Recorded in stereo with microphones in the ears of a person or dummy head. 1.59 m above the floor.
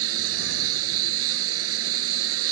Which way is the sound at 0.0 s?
80° right.